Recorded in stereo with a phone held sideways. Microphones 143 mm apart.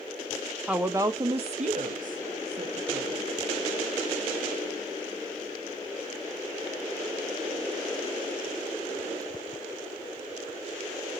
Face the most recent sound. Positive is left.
turn(degrees=-75)  # may be behind; listen again after turning